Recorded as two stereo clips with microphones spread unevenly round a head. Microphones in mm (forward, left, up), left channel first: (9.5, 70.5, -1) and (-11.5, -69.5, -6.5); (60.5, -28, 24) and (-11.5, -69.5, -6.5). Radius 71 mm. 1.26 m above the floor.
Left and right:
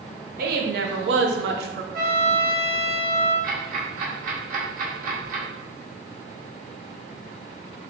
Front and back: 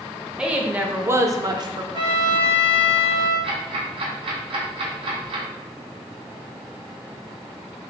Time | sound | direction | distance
0.4 | a woman speaking | 70° right | 1.0 m
1.9 | a trumpet | 125° right | 1.3 m
3.4 | ticking | 130° right | 1.2 m